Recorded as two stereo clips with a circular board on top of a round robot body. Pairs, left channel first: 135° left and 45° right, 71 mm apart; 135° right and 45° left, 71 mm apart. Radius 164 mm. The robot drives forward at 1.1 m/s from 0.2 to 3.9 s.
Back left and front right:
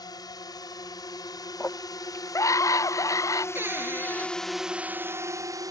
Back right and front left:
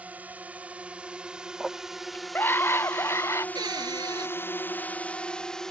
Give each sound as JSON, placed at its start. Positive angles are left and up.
{"t": 0.0, "sound": "a drone", "azimuth_deg": 115}
{"t": 1.6, "sound": "a scream", "azimuth_deg": 130}
{"t": 3.5, "sound": "a cupboard door", "azimuth_deg": 15}